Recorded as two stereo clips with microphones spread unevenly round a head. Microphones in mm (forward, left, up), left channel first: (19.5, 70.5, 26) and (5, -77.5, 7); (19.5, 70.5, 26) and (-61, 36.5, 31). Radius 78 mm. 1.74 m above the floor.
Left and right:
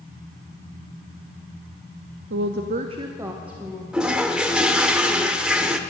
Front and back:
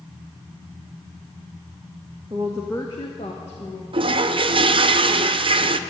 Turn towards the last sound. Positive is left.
turn(degrees=180)